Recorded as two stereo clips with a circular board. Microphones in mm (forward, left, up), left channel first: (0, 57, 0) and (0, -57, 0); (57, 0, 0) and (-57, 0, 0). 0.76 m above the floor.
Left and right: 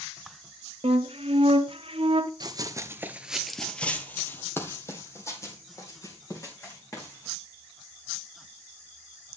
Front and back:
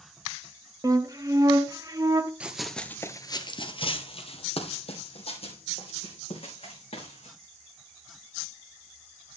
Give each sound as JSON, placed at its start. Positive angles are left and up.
{"t": 0.8, "sound": "a flute", "azimuth_deg": -120, "distance_m": 0.7}
{"t": 2.4, "sound": "running footsteps", "azimuth_deg": -105, "distance_m": 0.9}